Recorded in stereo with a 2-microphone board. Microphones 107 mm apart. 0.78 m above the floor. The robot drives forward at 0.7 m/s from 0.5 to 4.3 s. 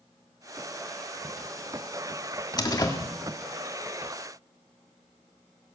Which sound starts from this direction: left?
A door slam, at 2.6 s.